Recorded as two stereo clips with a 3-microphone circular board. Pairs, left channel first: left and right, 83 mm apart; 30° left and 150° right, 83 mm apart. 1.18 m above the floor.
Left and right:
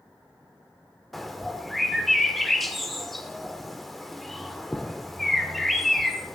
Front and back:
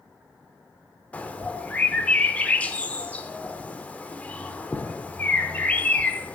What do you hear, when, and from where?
1.1 s a bird: straight ahead, 0.8 m